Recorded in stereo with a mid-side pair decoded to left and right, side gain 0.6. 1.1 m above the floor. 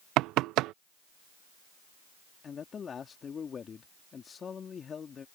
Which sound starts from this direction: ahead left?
A man speaking, at 2.4 s.